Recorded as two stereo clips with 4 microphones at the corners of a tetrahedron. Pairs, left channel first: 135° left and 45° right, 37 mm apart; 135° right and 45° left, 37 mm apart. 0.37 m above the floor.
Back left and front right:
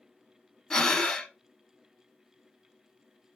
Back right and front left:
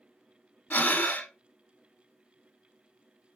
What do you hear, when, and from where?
0.7 s breathing: 155° right, 0.6 m